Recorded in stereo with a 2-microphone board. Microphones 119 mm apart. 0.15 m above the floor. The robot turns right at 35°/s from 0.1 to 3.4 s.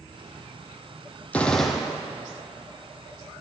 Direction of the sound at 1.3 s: 10° left (ahead or behind).